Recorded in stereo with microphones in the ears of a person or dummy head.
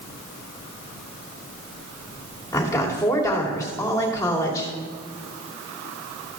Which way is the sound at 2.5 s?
20° left (ahead or behind).